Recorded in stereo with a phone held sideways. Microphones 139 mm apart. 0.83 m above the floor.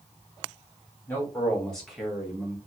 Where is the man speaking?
10° left (ahead or behind), 2.5 m; by 2.6 s 15° right (ahead or behind), 1.4 m.